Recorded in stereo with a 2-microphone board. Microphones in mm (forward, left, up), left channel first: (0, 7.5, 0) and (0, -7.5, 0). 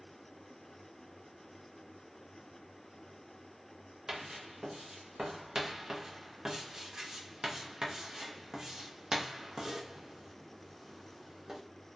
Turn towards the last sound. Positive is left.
turn(degrees=-45)  # may be behind; listen again after turning